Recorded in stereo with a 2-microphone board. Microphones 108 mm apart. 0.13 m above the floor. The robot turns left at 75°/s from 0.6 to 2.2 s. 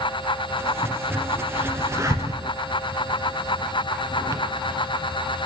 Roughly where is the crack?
Centre.